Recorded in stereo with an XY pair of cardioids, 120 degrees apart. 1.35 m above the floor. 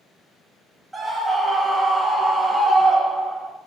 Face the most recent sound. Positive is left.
turn(degrees=-5)